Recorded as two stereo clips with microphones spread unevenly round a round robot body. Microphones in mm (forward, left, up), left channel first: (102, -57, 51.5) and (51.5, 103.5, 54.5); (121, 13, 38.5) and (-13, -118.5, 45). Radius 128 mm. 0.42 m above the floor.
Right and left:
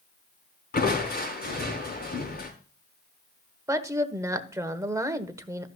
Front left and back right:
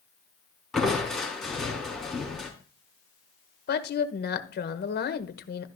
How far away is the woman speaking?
About 1.3 m.